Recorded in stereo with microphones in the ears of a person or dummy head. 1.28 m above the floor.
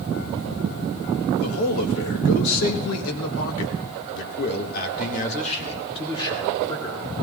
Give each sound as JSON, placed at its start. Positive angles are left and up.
{"t": 1.4, "sound": "a man speaking", "side_deg": 75, "distance_m": 2.0}